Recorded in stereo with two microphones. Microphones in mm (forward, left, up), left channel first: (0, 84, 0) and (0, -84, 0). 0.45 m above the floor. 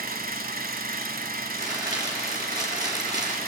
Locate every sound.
0.0 s an engine running: 60° right (ahead or behind), 1.4 m
1.5 s crumpling: 25° right (ahead or behind), 3.5 m